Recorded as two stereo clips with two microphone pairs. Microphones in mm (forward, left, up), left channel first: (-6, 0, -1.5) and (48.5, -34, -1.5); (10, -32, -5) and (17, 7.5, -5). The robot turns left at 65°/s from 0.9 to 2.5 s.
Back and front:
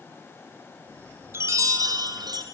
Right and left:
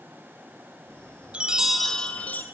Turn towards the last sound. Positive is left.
turn(degrees=-55)